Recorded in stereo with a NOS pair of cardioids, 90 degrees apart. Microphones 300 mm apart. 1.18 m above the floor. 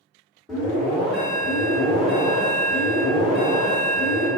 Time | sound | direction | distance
0.5 | an alarm | straight ahead | 1.7 m